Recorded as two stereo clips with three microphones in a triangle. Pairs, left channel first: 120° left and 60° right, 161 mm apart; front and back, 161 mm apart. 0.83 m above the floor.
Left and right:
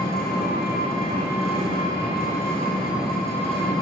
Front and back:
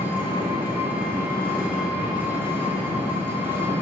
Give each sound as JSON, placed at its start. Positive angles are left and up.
{"t": 0.0, "sound": "an engine running", "azimuth_deg": 100, "distance_m": 1.6}